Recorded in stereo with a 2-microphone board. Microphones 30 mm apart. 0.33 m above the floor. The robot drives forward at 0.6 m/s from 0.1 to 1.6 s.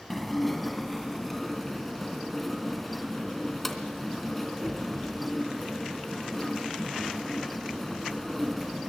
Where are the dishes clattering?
Centre (ahead or behind), 1.9 m.